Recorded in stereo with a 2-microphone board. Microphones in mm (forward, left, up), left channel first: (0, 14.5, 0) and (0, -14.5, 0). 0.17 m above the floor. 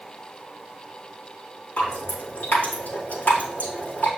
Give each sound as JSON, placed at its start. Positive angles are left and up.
{"t": 1.8, "sound": "dripping", "side_deg": 70, "distance_m": 4.0}